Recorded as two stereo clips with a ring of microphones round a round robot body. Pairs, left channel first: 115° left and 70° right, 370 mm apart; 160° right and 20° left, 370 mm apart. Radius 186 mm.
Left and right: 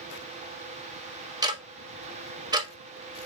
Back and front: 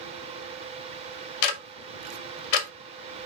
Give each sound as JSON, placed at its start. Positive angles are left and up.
{"t": 1.4, "sound": "ticking", "azimuth_deg": -145, "distance_m": 0.8}